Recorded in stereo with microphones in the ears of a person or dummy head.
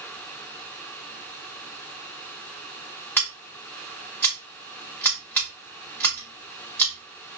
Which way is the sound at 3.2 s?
10° left (ahead or behind).